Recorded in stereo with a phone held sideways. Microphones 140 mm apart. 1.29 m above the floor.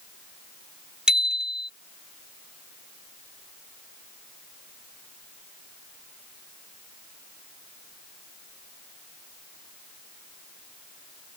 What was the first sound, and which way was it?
A bicycle bell, 5° right (ahead or behind).